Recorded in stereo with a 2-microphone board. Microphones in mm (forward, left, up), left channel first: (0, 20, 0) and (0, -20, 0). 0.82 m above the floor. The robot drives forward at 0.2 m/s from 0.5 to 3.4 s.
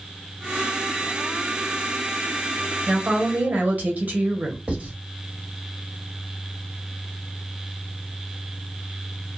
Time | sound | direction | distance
2.9 | a woman speaking | 35° right (ahead or behind) | 1.0 m
4.7 | writing | 35° right (ahead or behind) | 1.7 m